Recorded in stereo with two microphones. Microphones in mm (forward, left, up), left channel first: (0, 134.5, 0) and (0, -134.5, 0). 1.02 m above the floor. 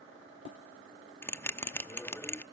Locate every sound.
1.2 s a bell: 10° left (ahead or behind), 0.6 m